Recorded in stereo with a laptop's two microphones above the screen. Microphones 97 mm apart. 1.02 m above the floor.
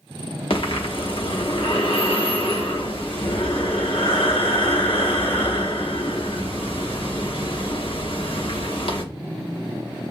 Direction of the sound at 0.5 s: 65° left (ahead or behind).